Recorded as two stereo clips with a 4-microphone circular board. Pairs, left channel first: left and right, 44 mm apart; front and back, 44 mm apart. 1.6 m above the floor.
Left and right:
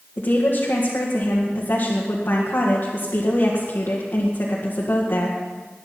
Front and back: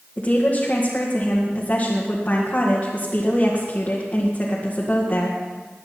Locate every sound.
0.2 s a woman speaking: 60° left, 2 m